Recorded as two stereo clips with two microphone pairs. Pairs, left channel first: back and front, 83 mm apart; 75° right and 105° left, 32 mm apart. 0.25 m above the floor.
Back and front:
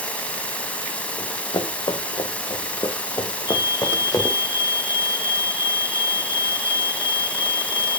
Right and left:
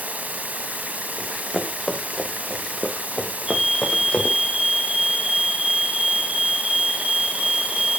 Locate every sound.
0.0 s running water: 110° left, 0.9 m
1.2 s running footsteps: 170° right, 3 m; by 4.4 s 135° right, 3 m
3.5 s a fire alarm: straight behind, 4.5 m